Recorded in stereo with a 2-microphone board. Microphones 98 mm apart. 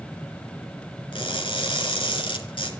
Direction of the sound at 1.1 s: 65° left (ahead or behind).